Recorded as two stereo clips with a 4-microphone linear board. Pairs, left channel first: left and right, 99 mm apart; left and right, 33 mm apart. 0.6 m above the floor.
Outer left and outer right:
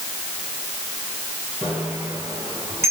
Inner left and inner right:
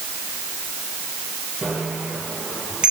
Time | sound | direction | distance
1.6 | a bicycle bell | 20° right (ahead or behind) | 8 m